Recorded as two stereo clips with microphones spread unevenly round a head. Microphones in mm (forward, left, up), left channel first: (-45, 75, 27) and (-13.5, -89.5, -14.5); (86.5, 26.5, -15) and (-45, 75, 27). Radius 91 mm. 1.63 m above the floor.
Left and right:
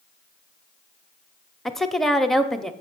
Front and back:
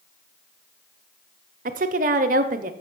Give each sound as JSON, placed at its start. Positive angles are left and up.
{"t": 1.6, "sound": "a woman speaking", "azimuth_deg": -175, "distance_m": 0.7}